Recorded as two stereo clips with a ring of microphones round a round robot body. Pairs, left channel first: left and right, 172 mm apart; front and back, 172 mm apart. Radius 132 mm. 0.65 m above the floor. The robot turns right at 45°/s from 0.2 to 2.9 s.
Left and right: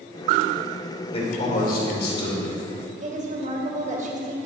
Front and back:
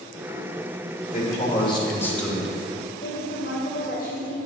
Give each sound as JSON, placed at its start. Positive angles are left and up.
{"t": 1.1, "sound": "a man speaking", "azimuth_deg": 35, "distance_m": 3.0}
{"t": 3.0, "sound": "a woman speaking", "azimuth_deg": -45, "distance_m": 2.5}